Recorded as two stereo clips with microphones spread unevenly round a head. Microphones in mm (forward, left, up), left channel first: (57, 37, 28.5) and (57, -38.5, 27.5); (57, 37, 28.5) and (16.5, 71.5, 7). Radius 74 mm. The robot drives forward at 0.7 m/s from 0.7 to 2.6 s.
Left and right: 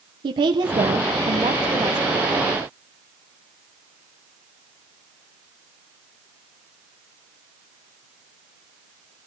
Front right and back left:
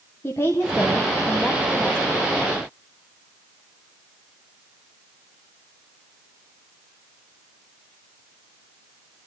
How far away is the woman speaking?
About 0.8 m.